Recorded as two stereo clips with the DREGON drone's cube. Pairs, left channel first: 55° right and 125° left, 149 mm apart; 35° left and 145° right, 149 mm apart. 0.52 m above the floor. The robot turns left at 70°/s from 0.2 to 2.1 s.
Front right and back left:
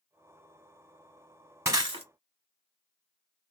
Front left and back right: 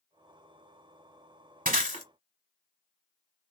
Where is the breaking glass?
165° right, 1.0 m; by 2.0 s 165° left, 1.0 m.